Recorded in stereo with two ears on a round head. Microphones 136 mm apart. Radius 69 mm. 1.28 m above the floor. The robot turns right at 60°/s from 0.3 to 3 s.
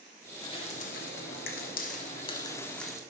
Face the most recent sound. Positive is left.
turn(degrees=-5)  # may be behind; listen again after turning